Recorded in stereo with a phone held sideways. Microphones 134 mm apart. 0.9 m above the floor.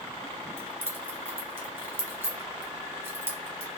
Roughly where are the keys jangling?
Centre.